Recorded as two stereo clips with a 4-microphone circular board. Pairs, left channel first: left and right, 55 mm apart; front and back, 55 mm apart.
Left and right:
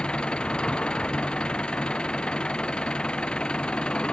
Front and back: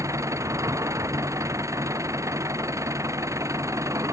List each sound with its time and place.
0.0 s an engine running: 165° left